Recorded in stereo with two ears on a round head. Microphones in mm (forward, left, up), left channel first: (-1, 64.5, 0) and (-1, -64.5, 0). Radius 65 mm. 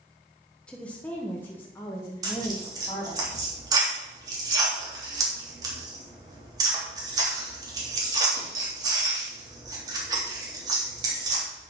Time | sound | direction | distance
0.7 | a woman speaking | 5° left (ahead or behind) | 1.2 m
2.2 | tearing paper | 30° right (ahead or behind) | 3.5 m